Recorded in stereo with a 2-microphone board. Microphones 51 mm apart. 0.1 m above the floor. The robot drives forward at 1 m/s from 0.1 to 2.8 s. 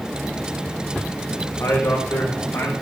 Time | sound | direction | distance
1.6 | a man speaking | 65° left (ahead or behind) | 4 m